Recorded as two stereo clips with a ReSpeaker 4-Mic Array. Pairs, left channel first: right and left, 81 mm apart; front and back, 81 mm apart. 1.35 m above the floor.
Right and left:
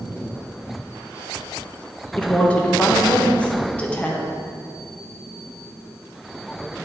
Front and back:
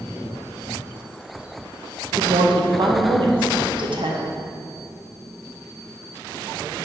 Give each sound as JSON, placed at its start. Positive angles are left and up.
{"t": 2.2, "sound": "a woman speaking", "azimuth_deg": -165, "distance_m": 1.0}